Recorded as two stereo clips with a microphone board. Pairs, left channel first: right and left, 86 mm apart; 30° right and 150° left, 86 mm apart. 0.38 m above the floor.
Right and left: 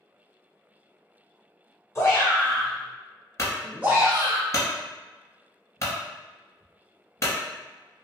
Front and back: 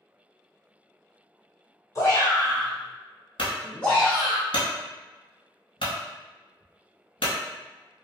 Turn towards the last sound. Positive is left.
turn(degrees=-40)